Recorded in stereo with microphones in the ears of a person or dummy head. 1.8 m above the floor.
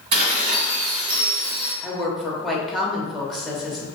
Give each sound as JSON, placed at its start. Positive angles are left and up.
{"t": 0.1, "sound": "dishes clattering", "side_deg": -40, "distance_m": 1.8}
{"t": 1.8, "sound": "a woman speaking", "side_deg": 5, "distance_m": 0.6}